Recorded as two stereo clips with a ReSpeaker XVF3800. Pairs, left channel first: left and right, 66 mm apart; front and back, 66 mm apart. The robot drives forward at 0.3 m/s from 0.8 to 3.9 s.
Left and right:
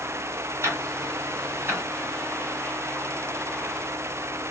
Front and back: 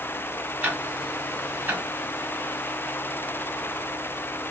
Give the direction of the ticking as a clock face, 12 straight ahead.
4 o'clock.